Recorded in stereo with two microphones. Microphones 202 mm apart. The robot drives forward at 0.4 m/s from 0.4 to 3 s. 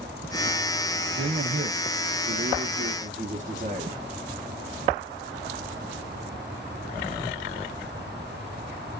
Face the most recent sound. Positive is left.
turn(degrees=-40)  # may be behind; listen again after turning